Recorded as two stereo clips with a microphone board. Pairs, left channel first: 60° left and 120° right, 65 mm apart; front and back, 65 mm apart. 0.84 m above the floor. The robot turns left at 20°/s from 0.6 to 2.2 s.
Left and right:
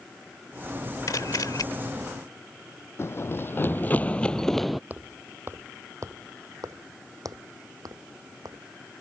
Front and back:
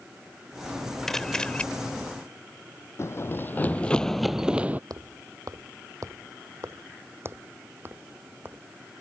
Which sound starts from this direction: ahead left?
Running footsteps, at 3.0 s.